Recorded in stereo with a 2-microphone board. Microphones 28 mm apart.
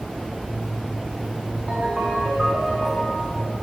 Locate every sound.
1.7 s a ringtone: 10° right (ahead or behind), 7.5 m